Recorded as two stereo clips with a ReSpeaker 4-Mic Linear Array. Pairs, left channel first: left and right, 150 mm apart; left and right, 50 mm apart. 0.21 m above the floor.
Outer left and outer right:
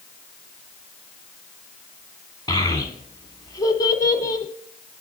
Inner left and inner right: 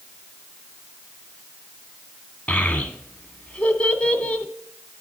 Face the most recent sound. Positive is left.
turn(degrees=25)  # may be behind; listen again after turning